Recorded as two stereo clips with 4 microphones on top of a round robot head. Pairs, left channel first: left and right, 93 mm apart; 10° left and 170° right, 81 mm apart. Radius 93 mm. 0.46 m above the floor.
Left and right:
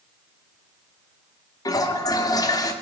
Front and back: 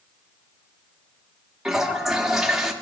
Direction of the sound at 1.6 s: 110° left.